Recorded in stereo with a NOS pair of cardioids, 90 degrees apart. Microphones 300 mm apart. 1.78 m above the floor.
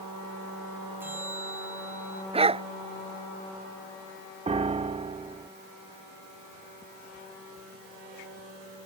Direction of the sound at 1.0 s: 5° right.